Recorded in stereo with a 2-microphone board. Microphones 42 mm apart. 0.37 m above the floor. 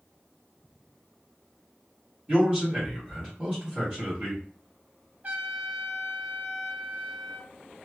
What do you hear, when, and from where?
2.3 s a man speaking: 30° right (ahead or behind), 1.7 m
5.2 s a trumpet: 45° right (ahead or behind), 0.8 m